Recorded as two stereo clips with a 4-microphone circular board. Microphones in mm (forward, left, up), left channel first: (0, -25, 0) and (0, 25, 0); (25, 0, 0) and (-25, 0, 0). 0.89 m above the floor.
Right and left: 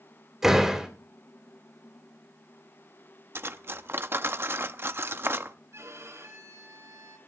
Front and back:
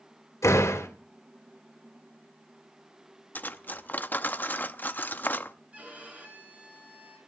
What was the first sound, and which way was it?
A door slam, 10° left.